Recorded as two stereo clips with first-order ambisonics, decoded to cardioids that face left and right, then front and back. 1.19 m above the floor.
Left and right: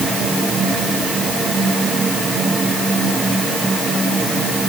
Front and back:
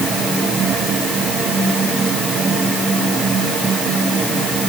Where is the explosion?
I don't hear an explosion.